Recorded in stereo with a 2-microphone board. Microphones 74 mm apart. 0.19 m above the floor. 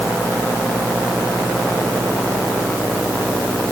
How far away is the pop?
No pop in this recording.